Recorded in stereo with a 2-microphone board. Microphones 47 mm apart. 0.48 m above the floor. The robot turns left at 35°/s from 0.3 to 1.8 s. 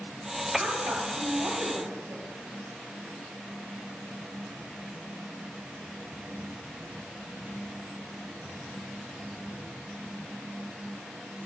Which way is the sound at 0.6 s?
60° right.